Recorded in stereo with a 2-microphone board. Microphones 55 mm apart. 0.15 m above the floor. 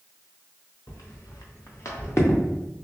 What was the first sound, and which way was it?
Footsteps, 80° left.